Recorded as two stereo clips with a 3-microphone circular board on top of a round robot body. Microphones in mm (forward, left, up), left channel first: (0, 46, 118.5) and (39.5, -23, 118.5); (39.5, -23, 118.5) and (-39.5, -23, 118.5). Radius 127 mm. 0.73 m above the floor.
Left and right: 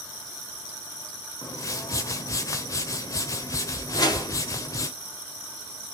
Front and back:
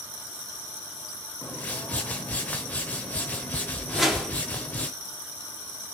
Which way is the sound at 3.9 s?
90° left.